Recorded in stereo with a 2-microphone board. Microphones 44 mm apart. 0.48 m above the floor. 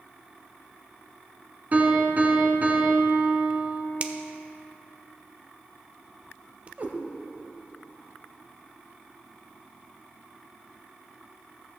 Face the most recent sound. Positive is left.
turn(degrees=-40)  # may be behind; listen again after turning